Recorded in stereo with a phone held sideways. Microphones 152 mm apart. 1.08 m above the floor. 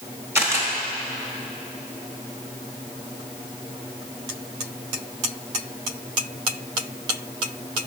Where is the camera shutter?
15° right (ahead or behind), 1.1 m.